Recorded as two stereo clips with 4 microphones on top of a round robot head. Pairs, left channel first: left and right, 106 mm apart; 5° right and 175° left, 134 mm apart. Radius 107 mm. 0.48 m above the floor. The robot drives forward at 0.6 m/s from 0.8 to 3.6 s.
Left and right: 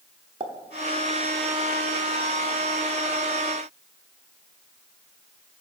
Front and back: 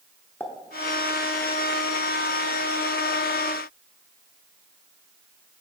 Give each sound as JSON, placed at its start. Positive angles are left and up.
{"t": 0.4, "sound": "a pop", "azimuth_deg": -75, "distance_m": 1.0}